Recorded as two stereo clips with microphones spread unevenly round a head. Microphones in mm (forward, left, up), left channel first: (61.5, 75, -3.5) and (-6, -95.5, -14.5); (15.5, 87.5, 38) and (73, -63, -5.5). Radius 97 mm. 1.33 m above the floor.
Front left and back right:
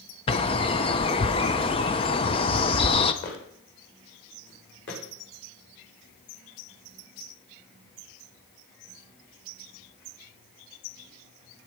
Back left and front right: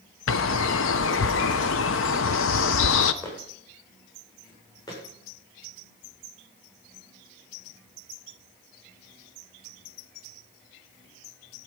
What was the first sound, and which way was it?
A bird, 135° left.